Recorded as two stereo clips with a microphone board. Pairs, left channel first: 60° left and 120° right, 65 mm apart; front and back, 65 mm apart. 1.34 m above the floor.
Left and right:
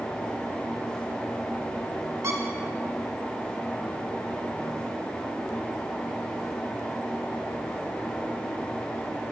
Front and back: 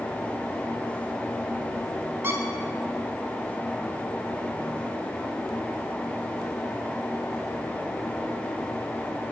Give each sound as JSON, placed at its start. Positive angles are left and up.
{"t": 2.2, "sound": "a squeak", "azimuth_deg": -140, "distance_m": 1.4}